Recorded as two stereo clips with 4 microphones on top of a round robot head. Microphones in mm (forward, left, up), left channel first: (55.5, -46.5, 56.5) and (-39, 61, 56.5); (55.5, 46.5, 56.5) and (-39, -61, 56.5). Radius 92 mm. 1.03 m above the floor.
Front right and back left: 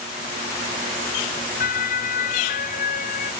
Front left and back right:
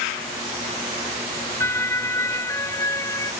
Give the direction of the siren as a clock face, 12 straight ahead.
1 o'clock.